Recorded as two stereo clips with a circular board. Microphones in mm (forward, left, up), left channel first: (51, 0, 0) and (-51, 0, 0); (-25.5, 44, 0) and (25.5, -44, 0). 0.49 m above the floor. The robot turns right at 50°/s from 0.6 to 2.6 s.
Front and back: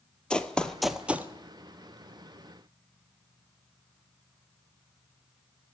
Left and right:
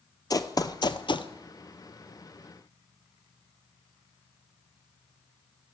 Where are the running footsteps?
80° left, 0.7 m; by 1.3 s 115° left, 0.7 m.